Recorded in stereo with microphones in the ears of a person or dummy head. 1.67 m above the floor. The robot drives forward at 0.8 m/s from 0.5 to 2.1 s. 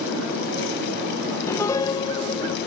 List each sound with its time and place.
1.5 s a piano: 20° left (ahead or behind); by 2.6 s 30° left (ahead or behind)